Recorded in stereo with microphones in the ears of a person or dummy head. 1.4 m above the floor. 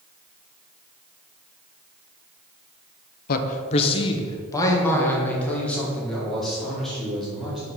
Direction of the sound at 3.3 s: 50° left (ahead or behind).